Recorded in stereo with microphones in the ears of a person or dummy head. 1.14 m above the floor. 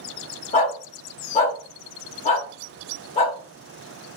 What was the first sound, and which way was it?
A dog barking, 35° left (ahead or behind).